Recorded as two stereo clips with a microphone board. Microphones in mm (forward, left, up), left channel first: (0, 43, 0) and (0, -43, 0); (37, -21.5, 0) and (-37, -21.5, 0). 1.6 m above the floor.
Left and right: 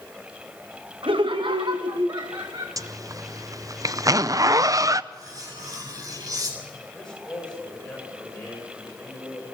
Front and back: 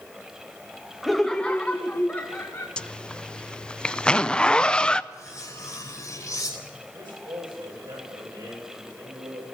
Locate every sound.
1.0 s laughter: 90° right, 0.7 m; by 2.7 s 60° right, 1.6 m
2.8 s a zipper: 75° right, 0.5 m
5.1 s cutlery clinking: 50° right, 4.5 m
6.9 s a man speaking: 170° left, 8.5 m